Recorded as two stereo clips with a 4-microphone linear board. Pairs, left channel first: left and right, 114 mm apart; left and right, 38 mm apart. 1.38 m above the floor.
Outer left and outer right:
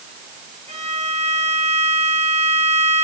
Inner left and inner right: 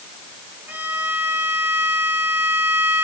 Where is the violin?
70° right (ahead or behind), 2.0 m.